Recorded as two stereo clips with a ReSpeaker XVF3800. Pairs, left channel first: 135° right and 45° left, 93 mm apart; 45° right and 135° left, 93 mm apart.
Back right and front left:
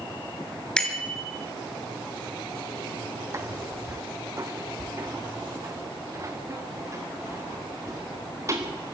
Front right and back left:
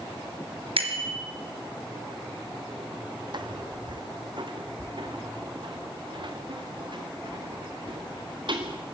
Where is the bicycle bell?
145° left, 3.5 m.